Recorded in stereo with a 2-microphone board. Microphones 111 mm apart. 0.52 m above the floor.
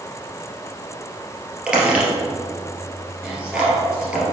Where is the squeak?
10° right (ahead or behind), 2.5 m.